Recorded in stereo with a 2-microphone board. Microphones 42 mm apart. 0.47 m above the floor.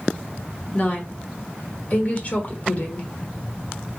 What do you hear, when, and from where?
0.7 s a woman speaking: 40° left (ahead or behind), 1.0 m